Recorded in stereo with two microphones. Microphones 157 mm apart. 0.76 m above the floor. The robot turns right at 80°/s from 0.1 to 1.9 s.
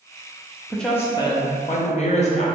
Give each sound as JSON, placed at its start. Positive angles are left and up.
{"t": 0.7, "sound": "a woman speaking", "azimuth_deg": 0, "distance_m": 0.5}